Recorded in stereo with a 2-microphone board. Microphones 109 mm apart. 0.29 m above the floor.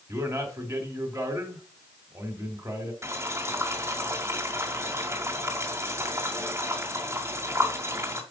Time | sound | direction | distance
0.1 | a man speaking | 30° right (ahead or behind) | 2 m
3.0 | boiling | 25° right (ahead or behind) | 2 m